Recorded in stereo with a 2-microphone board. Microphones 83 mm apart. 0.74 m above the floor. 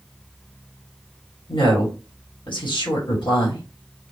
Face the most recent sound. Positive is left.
turn(degrees=65)  # may be behind; listen again after turning